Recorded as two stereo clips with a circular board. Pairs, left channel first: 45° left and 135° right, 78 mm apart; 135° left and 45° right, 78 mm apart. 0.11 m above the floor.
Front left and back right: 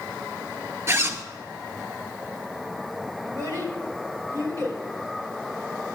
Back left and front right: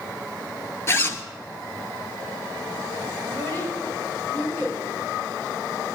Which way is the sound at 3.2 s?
170° right.